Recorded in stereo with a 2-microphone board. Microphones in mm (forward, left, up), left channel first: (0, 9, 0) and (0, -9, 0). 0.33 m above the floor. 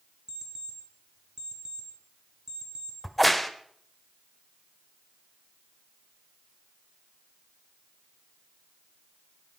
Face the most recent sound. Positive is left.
turn(degrees=0)  # may be behind; listen again after turning